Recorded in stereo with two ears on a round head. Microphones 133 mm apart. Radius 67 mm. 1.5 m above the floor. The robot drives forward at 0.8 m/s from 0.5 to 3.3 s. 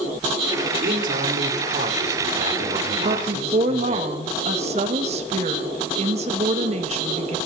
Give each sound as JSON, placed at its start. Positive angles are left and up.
{"t": 0.8, "sound": "a man speaking", "side_deg": -70, "distance_m": 3.5}
{"t": 3.0, "sound": "a woman speaking", "side_deg": -55, "distance_m": 1.9}